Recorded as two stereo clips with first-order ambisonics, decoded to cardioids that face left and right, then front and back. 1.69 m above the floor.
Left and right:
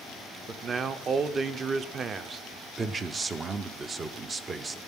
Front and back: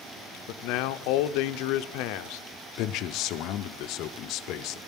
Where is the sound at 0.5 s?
25° right, 0.6 m.